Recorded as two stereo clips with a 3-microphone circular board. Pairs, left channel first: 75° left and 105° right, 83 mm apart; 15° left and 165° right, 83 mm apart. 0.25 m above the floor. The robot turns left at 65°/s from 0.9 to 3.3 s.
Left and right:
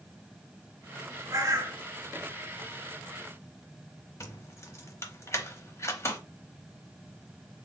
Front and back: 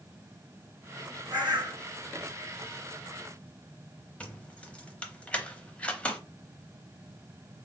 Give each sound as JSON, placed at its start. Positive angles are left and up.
{"t": 1.3, "sound": "a bird", "azimuth_deg": -140, "distance_m": 2.0}
{"t": 4.2, "sound": "keys jangling", "azimuth_deg": 75, "distance_m": 0.7}